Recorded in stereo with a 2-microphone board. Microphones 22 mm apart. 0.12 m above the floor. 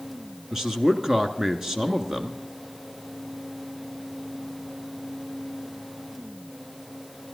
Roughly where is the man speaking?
Right.